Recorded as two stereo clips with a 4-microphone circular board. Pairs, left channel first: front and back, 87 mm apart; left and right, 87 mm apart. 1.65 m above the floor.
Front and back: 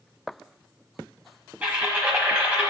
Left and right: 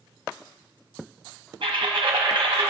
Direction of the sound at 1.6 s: 110° right.